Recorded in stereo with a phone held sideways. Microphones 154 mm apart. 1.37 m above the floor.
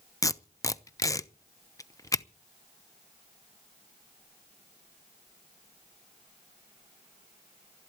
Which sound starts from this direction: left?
Tape being pulled, at 0.2 s.